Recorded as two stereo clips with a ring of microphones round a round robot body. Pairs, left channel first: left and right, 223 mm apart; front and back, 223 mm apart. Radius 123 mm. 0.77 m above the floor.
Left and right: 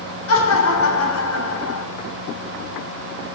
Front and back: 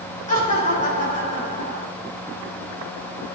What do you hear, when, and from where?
0.3 s laughter: 60° left, 3 m